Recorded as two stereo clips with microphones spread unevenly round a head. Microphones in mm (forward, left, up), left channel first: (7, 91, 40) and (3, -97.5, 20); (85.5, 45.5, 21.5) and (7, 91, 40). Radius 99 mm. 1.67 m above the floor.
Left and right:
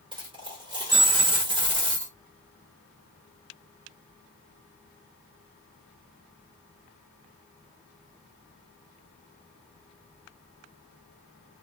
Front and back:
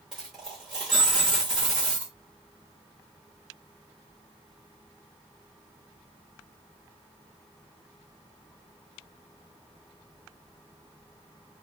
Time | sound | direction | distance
0.1 | a dropped coin | 150° right | 1.1 m